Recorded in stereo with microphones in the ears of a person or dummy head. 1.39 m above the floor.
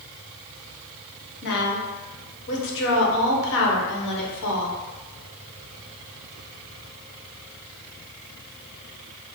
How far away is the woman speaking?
About 1.1 m.